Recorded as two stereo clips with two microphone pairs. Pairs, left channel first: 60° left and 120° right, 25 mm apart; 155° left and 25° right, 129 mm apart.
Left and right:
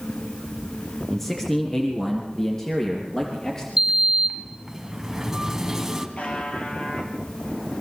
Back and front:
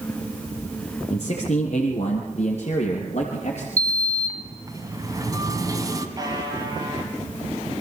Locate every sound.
1.1 s a man speaking: 125° left, 2.5 m; by 3.7 s 120° left, 4 m
3.8 s a sliding door: 60° right, 1.6 m
6.2 s a buzzer: 35° left, 3.5 m